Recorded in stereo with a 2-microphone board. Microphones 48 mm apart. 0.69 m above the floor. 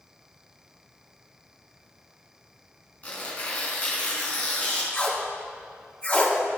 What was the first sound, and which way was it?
Tearing paper, 30° left (ahead or behind).